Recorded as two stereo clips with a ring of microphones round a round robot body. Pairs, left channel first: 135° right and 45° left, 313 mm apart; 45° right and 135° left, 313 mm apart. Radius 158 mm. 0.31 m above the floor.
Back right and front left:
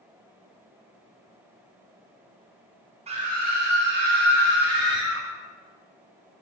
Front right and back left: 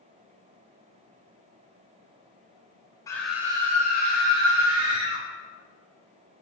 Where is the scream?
15° left, 1.3 m; by 5.2 s 100° left, 3 m.